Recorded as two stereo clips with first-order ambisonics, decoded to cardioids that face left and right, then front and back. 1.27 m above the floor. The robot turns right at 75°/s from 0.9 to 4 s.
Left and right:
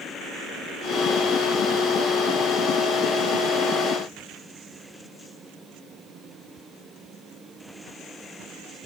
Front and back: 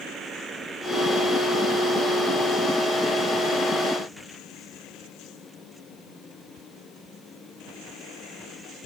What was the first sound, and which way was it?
Only background noise.